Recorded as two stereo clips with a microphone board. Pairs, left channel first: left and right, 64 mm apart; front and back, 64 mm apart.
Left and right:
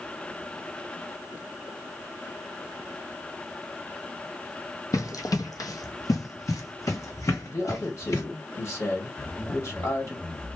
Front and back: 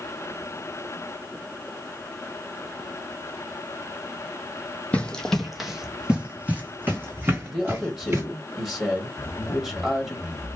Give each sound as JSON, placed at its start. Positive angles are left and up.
{"t": 4.9, "sound": "running footsteps", "azimuth_deg": 70, "distance_m": 0.9}
{"t": 7.5, "sound": "a man speaking", "azimuth_deg": 95, "distance_m": 2.0}
{"t": 9.2, "sound": "a zipper", "azimuth_deg": 20, "distance_m": 0.6}